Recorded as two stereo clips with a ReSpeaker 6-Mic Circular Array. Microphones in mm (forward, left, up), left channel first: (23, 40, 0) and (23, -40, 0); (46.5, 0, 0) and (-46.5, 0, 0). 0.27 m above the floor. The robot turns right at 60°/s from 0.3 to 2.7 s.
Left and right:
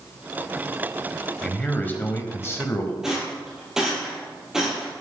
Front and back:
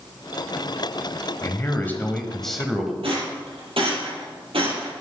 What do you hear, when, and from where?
1.4 s a man speaking: 20° left, 1.4 m; by 2.9 s 95° left, 1.4 m
3.0 s a rattle: 170° right, 4 m